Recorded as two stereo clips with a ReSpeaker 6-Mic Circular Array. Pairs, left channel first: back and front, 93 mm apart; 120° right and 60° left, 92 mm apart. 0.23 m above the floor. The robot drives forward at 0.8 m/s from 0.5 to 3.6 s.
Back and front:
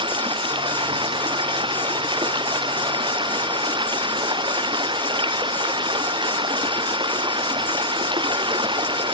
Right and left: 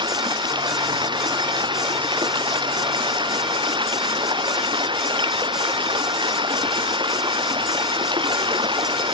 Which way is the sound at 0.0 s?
25° left.